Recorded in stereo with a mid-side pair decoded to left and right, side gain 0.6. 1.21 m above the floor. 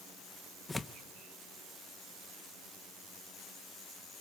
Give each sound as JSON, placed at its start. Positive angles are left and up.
{"t": 0.7, "sound": "tearing paper", "azimuth_deg": 20, "distance_m": 0.9}